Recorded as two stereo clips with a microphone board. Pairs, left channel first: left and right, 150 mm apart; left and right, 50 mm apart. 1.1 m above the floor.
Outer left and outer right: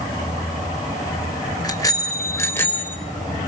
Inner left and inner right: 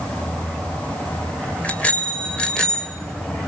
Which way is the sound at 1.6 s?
25° left (ahead or behind).